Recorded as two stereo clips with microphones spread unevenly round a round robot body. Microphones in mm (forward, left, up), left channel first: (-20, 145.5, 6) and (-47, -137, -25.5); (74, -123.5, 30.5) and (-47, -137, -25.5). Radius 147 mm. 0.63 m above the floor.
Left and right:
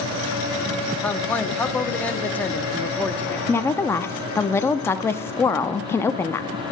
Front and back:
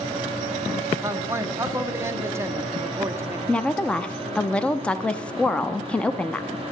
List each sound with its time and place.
1.0 s a man speaking: 175° left, 0.7 m
3.5 s a woman speaking: 170° left, 0.5 m